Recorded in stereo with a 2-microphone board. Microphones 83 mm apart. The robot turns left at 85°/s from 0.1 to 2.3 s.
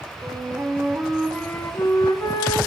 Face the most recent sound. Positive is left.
turn(degrees=80)